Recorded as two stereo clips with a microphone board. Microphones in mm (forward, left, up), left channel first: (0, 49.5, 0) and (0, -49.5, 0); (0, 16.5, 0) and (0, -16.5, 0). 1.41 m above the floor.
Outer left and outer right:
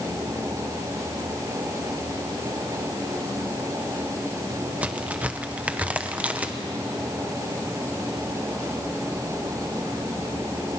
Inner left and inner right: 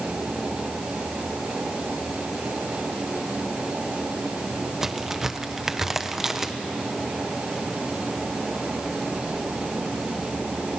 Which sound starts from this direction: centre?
A crack, at 4.8 s.